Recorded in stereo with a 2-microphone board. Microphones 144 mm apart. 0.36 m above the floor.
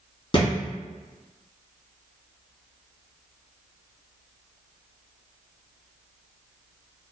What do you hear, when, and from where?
0.3 s a thud: 35° left (ahead or behind), 1.7 m